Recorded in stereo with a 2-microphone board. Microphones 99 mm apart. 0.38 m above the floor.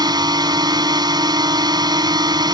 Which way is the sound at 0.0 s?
45° right (ahead or behind).